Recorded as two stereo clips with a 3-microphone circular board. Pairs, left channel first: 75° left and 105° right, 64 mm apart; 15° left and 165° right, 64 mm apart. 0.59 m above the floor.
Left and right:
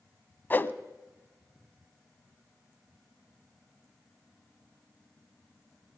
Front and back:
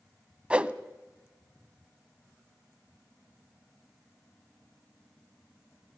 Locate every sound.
0.5 s a whoosh: 125° left, 0.6 m